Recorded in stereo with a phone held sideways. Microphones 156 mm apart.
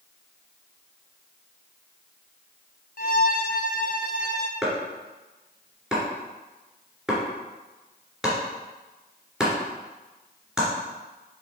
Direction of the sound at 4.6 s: 5° right (ahead or behind).